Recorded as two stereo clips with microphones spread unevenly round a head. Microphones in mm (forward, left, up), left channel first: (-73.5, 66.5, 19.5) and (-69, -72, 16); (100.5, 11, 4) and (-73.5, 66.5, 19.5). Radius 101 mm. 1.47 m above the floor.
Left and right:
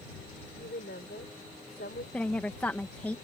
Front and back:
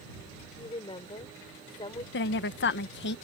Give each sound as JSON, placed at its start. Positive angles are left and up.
{"t": 0.6, "sound": "a woman speaking", "azimuth_deg": 45}
{"t": 2.1, "sound": "a woman speaking", "azimuth_deg": 10}